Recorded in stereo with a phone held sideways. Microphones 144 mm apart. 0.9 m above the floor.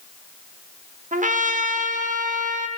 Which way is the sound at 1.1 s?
60° right (ahead or behind).